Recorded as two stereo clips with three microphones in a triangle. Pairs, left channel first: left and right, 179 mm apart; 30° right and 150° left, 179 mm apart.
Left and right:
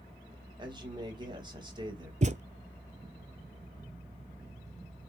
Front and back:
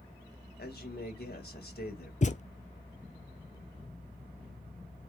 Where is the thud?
60° right, 0.5 m.